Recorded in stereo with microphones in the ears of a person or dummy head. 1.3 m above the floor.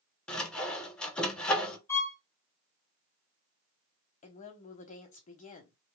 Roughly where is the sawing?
Centre.